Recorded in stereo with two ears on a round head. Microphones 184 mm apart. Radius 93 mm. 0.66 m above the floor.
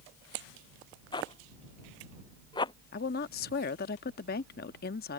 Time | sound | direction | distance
1.1 | a zipper | 25° left (ahead or behind) | ?
2.9 | a woman speaking | 50° left (ahead or behind) | ?